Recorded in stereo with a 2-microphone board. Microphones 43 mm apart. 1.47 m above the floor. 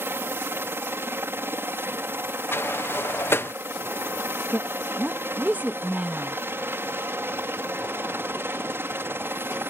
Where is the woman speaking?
45° right (ahead or behind).